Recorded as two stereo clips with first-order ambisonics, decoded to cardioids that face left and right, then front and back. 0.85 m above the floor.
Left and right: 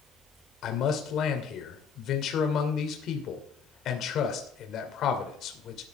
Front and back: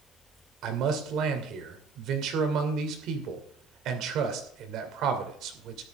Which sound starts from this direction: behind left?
A man speaking, at 0.6 s.